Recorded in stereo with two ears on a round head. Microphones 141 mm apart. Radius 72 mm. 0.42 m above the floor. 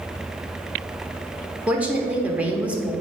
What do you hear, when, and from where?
1.7 s a woman speaking: 10° right (ahead or behind), 1.0 m